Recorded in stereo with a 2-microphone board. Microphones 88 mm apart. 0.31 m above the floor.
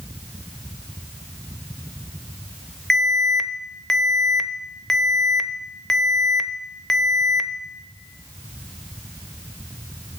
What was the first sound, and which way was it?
An alarm, 5° left (ahead or behind).